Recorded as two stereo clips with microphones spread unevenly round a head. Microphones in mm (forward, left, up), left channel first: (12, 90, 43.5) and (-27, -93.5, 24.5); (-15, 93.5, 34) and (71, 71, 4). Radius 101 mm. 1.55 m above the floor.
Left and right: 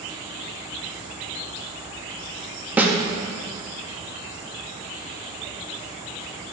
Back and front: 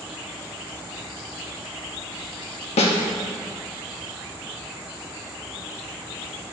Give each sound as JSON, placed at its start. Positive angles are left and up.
{"t": 2.8, "sound": "a snare drum", "azimuth_deg": 175, "distance_m": 0.7}